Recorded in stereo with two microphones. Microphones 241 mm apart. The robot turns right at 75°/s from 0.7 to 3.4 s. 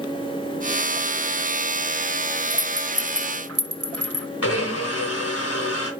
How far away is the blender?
About 3 m.